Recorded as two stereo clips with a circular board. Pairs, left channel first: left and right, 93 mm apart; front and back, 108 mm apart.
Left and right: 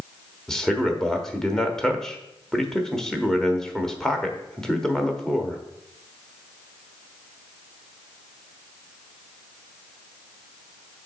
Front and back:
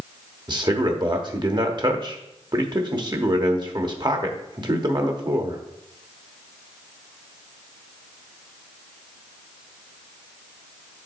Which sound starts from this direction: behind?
A man speaking, at 0.5 s.